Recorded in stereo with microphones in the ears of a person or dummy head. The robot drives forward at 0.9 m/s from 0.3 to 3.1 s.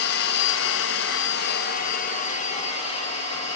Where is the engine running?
65° left (ahead or behind), 1.3 m; by 3.6 s 30° left (ahead or behind), 2.5 m.